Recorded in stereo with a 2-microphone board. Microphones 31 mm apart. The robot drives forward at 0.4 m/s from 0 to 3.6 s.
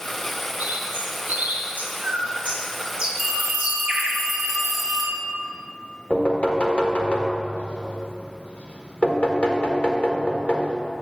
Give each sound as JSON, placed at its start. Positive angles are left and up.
{"t": 0.6, "sound": "a bird", "side_deg": -85, "distance_m": 1.1}
{"t": 3.2, "sound": "a phone ringing", "side_deg": 5, "distance_m": 2.5}
{"t": 6.1, "sound": "knocking", "side_deg": 45, "distance_m": 1.3}